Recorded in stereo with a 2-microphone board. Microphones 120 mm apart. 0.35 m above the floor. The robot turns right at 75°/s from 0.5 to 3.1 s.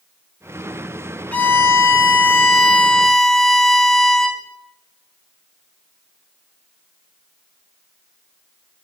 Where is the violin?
10° left (ahead or behind), 1.3 m; by 4.4 s 5° left (ahead or behind), 1.3 m.